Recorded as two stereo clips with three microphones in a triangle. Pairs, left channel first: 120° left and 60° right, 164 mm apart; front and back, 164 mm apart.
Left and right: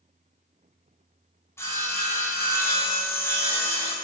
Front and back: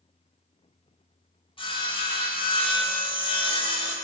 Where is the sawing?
50° left, 1.0 m.